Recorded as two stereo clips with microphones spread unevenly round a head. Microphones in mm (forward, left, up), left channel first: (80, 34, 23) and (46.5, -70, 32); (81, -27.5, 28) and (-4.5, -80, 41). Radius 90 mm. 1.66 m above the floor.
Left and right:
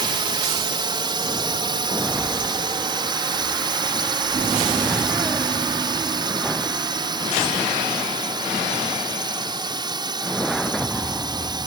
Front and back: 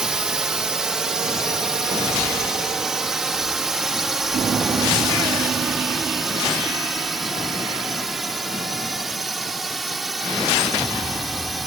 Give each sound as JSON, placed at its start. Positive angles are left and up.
{"t": 0.0, "sound": "a drone", "azimuth_deg": -65}